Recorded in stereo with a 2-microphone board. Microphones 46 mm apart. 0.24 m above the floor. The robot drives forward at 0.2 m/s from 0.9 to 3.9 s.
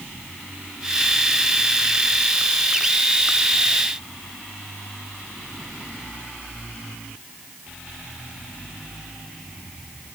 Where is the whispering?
I don't hear whispering.